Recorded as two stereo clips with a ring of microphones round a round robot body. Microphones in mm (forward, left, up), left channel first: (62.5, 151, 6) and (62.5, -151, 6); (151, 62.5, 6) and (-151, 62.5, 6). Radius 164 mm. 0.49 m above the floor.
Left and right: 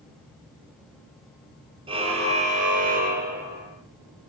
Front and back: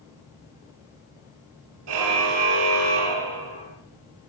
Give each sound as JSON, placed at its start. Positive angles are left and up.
{"t": 1.9, "sound": "a car horn", "azimuth_deg": -165, "distance_m": 4.0}